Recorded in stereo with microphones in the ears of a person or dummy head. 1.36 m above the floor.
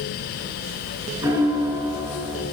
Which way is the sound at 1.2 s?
15° right (ahead or behind).